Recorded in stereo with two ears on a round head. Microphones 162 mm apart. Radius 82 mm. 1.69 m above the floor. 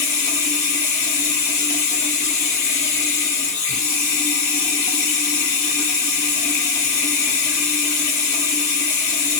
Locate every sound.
0.0 s running water: 40° left (ahead or behind), 1.3 m